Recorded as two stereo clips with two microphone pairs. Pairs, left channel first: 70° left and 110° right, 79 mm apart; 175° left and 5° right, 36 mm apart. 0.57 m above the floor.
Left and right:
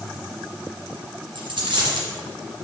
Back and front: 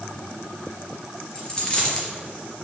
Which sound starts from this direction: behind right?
A dropped coin, at 1.4 s.